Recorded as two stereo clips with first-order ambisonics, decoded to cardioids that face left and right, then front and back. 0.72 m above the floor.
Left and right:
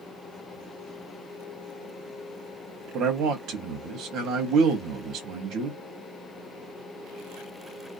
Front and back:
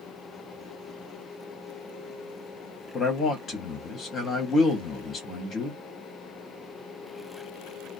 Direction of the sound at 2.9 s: 60° right.